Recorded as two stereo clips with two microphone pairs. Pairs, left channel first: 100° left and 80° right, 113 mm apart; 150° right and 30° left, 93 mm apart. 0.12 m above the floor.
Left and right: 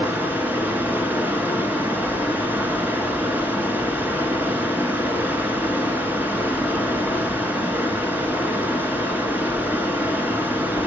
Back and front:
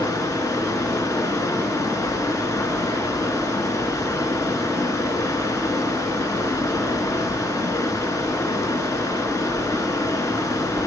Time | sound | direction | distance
0.0 | running water | 140° right | 1.5 m